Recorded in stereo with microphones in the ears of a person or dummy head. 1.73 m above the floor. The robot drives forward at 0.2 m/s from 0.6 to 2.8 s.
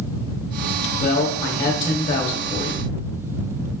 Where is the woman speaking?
40° left (ahead or behind), 1.1 m; by 2.8 s 50° left (ahead or behind), 1.0 m.